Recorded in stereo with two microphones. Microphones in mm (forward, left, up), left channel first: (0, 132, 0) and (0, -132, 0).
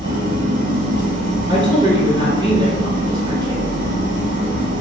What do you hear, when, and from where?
0.0 s an engine running: 50° right (ahead or behind), 1.3 m
1.5 s a woman speaking: 20° right (ahead or behind), 1.2 m